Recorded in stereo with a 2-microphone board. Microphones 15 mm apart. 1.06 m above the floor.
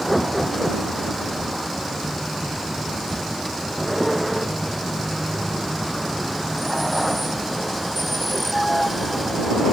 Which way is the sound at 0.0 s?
5° right (ahead or behind).